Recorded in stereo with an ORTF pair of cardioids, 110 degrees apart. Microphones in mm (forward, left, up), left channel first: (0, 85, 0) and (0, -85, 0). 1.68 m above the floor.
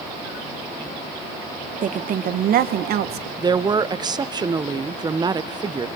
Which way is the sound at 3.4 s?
25° right.